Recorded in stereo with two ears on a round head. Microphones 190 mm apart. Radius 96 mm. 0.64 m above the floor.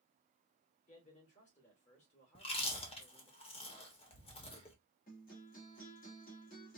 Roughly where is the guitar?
Left.